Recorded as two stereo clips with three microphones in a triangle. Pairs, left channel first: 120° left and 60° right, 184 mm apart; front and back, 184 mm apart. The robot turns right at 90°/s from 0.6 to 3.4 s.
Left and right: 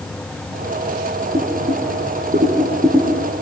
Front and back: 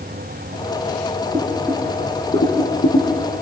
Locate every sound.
1.3 s boiling: 120° right, 5.5 m; by 3.1 s 35° left, 5.5 m